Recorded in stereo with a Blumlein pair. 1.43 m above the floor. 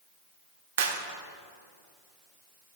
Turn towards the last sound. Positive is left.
turn(degrees=-55)